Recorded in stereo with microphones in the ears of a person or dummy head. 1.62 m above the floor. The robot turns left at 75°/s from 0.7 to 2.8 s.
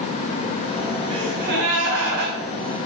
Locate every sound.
1.1 s a gasp: 30° right, 4 m; by 2.4 s 125° right, 4 m